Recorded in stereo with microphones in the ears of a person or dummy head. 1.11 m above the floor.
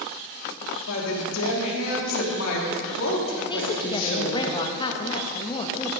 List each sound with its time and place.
0.9 s a woman speaking: 80° left, 2.5 m
3.5 s a woman speaking: 30° left (ahead or behind), 1.1 m